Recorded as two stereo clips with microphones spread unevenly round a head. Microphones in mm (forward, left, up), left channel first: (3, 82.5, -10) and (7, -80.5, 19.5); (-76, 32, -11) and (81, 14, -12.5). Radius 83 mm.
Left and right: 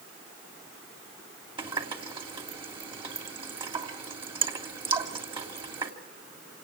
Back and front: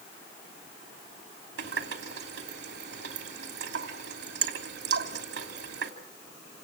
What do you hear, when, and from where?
1.6 s a running tap: 30° right, 3 m